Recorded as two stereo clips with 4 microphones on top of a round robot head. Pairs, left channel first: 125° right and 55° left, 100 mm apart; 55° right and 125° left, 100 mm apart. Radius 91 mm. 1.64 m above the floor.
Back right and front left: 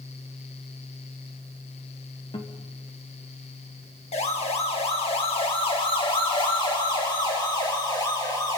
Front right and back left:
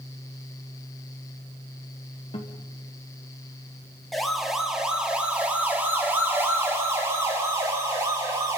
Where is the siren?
140° right, 3 m; by 8.6 s straight behind, 5 m.